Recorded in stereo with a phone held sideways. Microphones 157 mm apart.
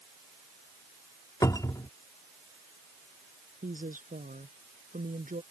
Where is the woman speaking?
60° right (ahead or behind).